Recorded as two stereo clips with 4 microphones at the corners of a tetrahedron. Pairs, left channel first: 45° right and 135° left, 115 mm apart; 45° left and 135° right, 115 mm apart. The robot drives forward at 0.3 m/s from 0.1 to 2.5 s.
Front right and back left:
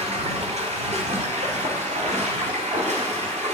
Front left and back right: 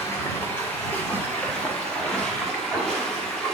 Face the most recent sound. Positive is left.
turn(degrees=130)